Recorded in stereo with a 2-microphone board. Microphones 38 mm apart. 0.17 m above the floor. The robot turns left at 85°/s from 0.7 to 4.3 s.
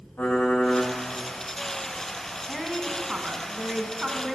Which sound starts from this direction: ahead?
A woman speaking, at 2.5 s.